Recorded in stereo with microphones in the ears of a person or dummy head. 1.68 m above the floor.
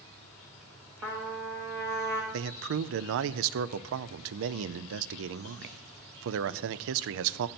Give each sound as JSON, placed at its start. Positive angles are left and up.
{"t": 0.0, "sound": "an insect", "side_deg": 5, "distance_m": 7.0}
{"t": 1.0, "sound": "a trumpet", "side_deg": -10, "distance_m": 1.0}
{"t": 2.3, "sound": "a man speaking", "side_deg": -65, "distance_m": 0.5}